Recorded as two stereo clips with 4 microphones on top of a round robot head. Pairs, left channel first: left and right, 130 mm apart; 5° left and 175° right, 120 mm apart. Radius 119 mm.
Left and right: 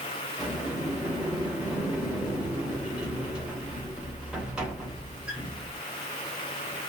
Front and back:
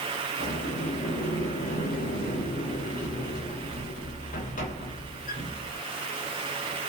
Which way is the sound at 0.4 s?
10° right.